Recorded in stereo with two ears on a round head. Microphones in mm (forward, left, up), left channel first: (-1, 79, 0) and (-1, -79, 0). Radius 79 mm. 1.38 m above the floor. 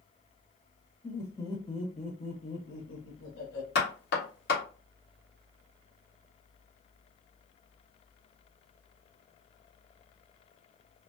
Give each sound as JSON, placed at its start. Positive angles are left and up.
{"t": 1.0, "sound": "laughter", "side_deg": 10, "distance_m": 1.2}
{"t": 3.8, "sound": "knocking", "side_deg": 60, "distance_m": 1.5}